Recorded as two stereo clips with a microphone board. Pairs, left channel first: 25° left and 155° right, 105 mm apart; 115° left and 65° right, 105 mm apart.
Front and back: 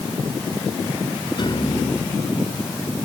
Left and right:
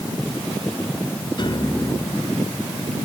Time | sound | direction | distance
1.4 | a piano | 70° left | ?